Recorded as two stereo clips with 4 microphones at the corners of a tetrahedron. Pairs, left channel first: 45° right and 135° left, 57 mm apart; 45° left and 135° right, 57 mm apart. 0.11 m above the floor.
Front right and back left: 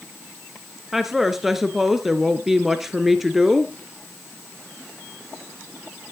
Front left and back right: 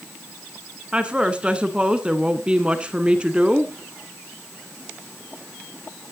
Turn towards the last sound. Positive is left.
turn(degrees=-150)